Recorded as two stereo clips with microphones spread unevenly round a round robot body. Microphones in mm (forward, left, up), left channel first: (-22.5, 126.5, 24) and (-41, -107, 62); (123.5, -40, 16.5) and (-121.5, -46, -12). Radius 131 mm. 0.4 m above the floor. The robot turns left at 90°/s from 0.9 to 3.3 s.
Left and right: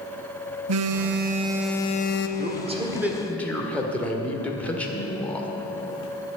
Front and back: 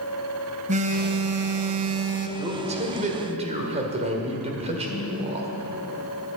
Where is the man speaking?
125° right, 1.6 m; by 5.5 s 150° left, 1.6 m.